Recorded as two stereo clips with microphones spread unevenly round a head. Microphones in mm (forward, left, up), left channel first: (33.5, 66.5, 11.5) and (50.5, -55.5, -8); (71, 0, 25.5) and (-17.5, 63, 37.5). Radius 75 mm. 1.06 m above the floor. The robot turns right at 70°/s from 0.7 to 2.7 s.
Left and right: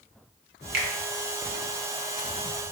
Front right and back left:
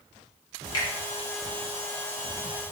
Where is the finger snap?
95° right, 0.7 m; by 0.9 s 85° right, 0.7 m.